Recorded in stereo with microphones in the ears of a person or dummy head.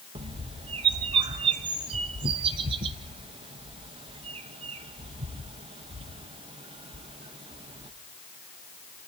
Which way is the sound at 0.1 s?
30° right (ahead or behind).